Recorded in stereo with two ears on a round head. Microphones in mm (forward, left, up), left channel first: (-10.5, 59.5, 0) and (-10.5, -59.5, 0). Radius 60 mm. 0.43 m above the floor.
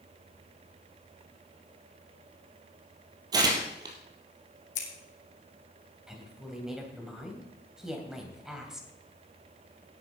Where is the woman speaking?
5° right (ahead or behind), 2.5 m.